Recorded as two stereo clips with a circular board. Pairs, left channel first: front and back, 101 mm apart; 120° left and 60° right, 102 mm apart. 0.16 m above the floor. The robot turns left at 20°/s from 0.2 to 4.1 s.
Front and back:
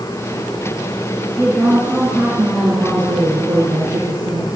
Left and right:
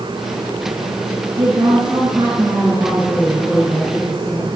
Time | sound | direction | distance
1.4 | a woman speaking | 85° right | 5 m